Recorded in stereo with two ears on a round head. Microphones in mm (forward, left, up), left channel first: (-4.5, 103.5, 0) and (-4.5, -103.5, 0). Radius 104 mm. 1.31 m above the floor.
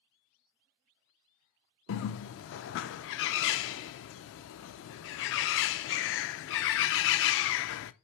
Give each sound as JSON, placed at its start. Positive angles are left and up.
{"t": 1.9, "sound": "a bird", "side_deg": 55, "distance_m": 0.5}